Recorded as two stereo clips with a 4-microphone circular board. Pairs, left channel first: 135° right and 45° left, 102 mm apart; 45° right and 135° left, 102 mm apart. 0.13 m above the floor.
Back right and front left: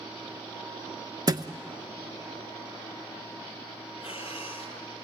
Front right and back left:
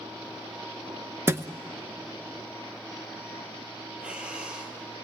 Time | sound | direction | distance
1.3 | a thud | 80° left | 0.7 m
4.0 | breathing | 145° right | 2.5 m